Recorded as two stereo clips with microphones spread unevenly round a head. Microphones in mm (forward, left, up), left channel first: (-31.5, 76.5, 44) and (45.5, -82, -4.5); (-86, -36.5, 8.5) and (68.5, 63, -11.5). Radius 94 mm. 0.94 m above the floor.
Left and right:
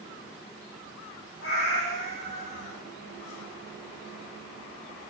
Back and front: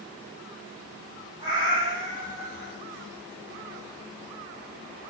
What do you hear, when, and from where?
1.4 s a cat meowing: 105° left, 8.5 m